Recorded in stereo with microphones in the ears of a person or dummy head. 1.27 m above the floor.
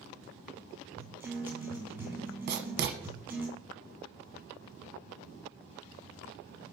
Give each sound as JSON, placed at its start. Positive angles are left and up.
{"t": 1.0, "sound": "a guitar", "side_deg": -10, "distance_m": 4.0}
{"t": 2.5, "sound": "writing", "side_deg": -50, "distance_m": 1.0}